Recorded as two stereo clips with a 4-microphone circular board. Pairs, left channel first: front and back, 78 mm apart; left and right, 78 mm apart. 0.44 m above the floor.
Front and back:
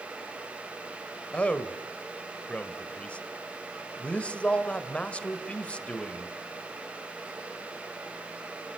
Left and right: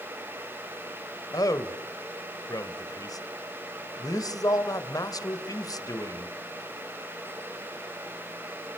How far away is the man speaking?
About 2 m.